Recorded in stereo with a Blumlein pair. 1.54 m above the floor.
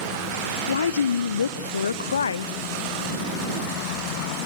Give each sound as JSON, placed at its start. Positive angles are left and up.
{"t": 0.7, "sound": "a woman speaking", "azimuth_deg": 70, "distance_m": 0.7}